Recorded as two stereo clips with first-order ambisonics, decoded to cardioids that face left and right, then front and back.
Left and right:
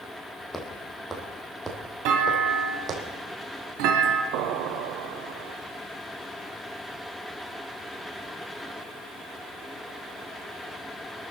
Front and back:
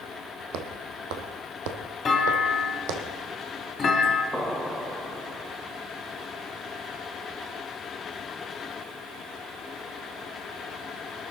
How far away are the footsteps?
About 2.5 m.